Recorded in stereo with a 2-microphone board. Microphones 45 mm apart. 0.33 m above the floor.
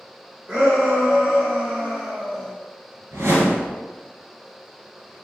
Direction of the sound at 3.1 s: 75° right (ahead or behind).